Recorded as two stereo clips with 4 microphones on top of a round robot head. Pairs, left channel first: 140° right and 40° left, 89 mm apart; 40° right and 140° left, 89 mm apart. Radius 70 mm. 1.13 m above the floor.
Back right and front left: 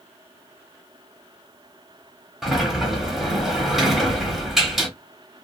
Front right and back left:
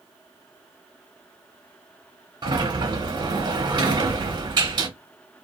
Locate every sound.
2.4 s a sliding door: 125° left, 1.0 m